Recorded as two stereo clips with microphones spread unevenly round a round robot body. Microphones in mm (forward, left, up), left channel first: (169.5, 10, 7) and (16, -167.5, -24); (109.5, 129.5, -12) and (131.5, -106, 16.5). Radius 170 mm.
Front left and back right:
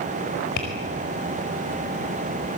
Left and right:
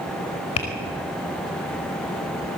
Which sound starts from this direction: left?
Tapping, at 0.6 s.